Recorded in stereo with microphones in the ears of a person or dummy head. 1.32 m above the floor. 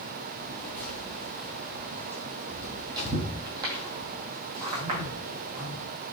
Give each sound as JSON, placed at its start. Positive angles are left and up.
{"t": 0.4, "sound": "footsteps", "side_deg": 15, "distance_m": 1.9}